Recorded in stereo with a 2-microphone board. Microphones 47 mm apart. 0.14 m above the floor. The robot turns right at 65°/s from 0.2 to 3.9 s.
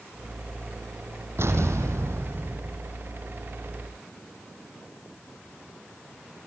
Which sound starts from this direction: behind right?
An explosion, at 1.4 s.